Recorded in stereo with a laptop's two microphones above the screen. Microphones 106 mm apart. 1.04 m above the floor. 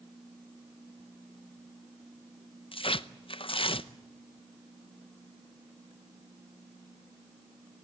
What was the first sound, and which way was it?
Tearing paper, 55° left (ahead or behind).